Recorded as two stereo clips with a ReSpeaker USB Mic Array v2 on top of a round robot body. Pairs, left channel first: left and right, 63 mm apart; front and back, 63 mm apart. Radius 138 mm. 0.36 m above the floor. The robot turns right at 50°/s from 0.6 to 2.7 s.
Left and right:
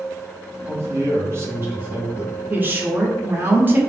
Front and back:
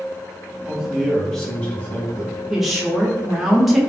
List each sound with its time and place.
0.7 s a man speaking: 110° right, 1.4 m; by 2.3 s 25° right, 1.4 m
2.5 s a woman speaking: 105° right, 1.0 m; by 3.8 s 95° right, 1.0 m